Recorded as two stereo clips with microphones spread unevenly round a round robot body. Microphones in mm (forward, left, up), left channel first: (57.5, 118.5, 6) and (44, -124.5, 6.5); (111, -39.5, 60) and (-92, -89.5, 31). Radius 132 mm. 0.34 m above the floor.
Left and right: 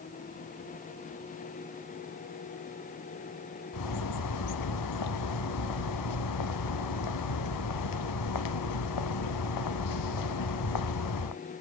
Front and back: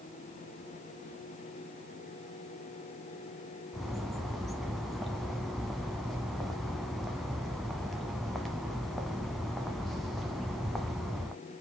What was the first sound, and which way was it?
A bird, 105° left.